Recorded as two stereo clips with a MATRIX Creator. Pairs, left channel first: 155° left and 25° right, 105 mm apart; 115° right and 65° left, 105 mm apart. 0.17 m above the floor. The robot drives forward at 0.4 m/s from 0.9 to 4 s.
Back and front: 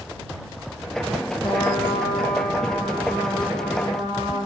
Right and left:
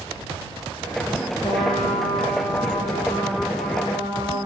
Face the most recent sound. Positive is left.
turn(degrees=-165)